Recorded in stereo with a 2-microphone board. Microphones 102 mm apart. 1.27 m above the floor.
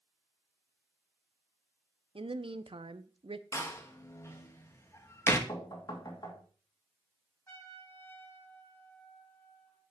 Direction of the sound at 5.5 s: 45° left (ahead or behind).